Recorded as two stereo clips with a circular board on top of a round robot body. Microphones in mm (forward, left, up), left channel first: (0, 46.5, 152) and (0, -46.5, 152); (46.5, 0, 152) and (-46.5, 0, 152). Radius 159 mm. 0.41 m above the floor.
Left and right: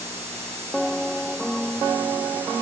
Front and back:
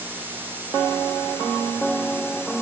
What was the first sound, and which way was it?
Only background noise.